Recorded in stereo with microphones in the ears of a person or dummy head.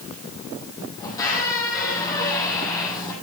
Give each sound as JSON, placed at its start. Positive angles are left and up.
{"t": 1.0, "sound": "a squeak", "side_deg": 20, "distance_m": 3.5}